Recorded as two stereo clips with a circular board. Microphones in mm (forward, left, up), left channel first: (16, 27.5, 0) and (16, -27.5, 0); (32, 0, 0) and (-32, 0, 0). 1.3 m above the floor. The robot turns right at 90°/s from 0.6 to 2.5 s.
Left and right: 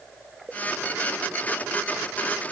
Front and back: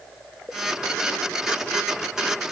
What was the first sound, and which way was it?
Only background noise.